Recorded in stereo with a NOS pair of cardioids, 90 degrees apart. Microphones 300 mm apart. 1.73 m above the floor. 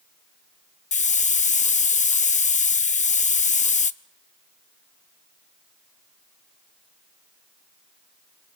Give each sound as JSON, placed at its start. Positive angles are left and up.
{"t": 0.9, "sound": "a hiss", "azimuth_deg": 25, "distance_m": 0.9}